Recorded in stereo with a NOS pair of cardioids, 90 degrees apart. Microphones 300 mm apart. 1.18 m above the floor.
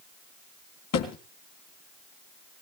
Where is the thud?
65° left, 3 m.